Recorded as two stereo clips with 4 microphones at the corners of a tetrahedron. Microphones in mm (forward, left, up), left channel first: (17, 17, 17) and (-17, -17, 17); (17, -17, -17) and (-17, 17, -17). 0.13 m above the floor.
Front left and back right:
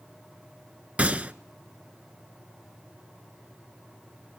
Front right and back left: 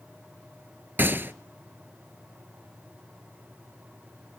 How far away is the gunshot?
About 0.5 m.